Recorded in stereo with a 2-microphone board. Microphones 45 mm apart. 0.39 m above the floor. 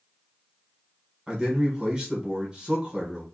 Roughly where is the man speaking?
Centre.